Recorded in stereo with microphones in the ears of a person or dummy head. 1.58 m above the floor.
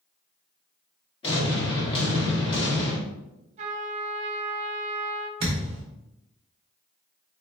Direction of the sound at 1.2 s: 30° left (ahead or behind).